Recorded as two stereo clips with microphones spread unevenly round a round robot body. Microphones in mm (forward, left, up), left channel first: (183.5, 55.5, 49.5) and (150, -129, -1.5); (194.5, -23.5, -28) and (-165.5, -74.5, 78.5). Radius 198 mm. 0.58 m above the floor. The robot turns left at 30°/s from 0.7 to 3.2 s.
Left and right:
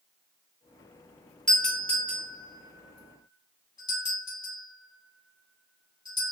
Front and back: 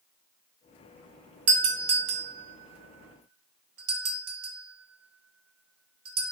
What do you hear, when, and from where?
1.5 s a doorbell: 155° right, 1.2 m; by 6.3 s 150° left, 1.2 m